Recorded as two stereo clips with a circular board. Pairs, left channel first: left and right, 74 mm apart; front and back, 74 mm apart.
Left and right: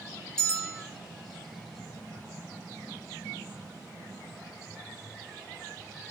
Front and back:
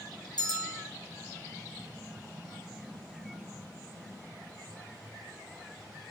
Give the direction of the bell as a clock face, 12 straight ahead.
12 o'clock.